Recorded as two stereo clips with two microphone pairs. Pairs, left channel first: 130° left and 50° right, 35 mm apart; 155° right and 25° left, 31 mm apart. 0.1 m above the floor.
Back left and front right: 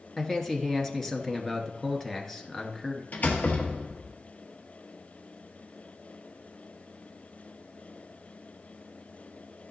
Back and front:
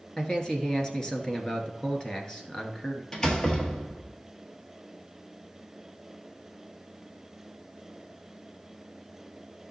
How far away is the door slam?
About 1.4 m.